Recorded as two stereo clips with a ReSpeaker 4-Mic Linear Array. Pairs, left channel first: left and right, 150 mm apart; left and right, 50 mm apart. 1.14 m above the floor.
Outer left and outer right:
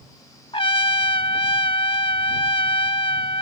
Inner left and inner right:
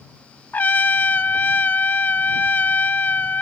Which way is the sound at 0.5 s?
35° left (ahead or behind).